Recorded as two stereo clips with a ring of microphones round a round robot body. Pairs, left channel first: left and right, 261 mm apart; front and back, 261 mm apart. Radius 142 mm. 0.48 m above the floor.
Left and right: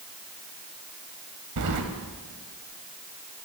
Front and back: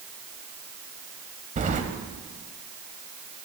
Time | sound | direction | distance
1.6 | keys jangling | 120° right | 1.5 m